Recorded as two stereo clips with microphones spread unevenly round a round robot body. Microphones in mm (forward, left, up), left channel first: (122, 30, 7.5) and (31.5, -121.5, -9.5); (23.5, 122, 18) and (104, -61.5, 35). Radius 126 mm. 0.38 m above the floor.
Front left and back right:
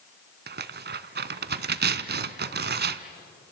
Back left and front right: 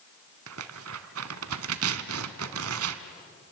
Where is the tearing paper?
95° right, 0.9 m.